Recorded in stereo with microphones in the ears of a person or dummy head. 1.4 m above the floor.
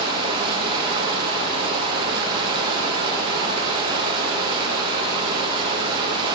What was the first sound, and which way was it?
Running water, 30° right (ahead or behind).